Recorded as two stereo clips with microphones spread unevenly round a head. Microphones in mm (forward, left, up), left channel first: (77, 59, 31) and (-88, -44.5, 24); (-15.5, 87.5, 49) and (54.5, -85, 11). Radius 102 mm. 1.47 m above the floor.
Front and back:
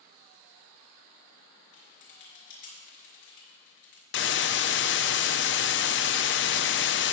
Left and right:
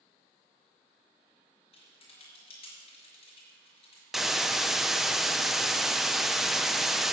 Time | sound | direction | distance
1.7 | typing on a keyboard | 55° left | 4.5 m
4.1 | a hiss | 15° left | 0.6 m